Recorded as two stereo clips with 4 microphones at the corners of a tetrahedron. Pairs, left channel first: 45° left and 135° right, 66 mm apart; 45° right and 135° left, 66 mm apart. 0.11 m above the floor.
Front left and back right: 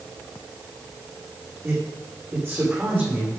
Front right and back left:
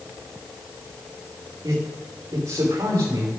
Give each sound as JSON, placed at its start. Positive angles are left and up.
{"t": 1.6, "sound": "a man speaking", "azimuth_deg": 170, "distance_m": 8.5}